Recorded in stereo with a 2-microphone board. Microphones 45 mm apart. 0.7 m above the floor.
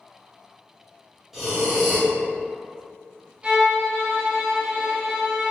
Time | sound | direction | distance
1.3 | breathing | 5° right (ahead or behind) | 1.1 m
3.4 | a violin | 20° right (ahead or behind) | 0.8 m